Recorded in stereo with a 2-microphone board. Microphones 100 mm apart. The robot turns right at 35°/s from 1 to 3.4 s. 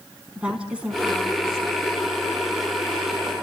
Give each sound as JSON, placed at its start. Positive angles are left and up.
{"t": 0.3, "sound": "a woman speaking", "azimuth_deg": -170, "distance_m": 6.0}